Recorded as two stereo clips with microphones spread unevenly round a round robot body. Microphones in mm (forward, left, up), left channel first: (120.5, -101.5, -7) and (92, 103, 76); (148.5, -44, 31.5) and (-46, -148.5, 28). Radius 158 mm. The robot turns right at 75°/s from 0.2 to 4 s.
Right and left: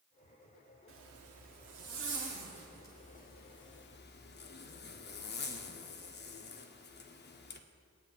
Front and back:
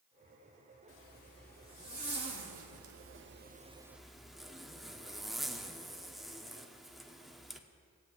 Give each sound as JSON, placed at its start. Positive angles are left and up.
{"t": 0.9, "sound": "a zipper", "azimuth_deg": 65, "distance_m": 1.0}